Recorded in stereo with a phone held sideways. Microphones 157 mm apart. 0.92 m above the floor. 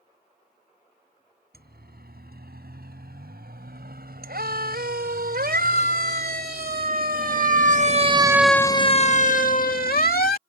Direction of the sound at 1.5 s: 85° right.